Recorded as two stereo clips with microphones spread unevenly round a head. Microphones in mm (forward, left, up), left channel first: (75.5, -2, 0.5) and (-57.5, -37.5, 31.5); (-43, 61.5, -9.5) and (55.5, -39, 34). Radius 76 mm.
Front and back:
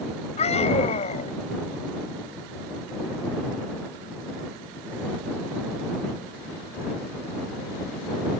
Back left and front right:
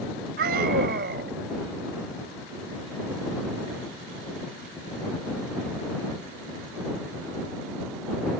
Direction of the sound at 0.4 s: 30° right.